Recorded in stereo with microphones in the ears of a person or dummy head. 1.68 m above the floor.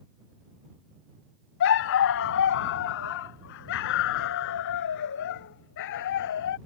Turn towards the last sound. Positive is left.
turn(degrees=65)  # may be behind; listen again after turning